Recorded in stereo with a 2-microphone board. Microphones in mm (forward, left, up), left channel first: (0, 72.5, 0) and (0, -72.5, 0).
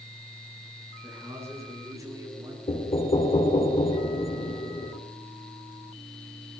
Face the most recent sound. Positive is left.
turn(degrees=45)  # may be behind; listen again after turning